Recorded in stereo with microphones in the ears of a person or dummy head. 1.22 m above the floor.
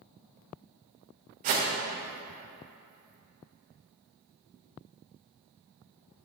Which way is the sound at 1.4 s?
40° right (ahead or behind).